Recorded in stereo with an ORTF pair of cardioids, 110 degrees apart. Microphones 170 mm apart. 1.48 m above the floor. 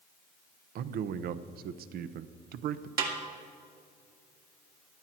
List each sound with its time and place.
0.8 s a man speaking: 70° right, 0.8 m
3.0 s a snare drum: 65° right, 2 m